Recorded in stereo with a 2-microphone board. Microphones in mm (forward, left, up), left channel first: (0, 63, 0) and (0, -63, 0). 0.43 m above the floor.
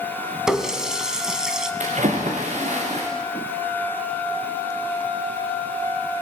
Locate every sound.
0.5 s a running tap: 5° right (ahead or behind), 2.5 m
1.8 s a splash: 70° right (ahead or behind), 6.5 m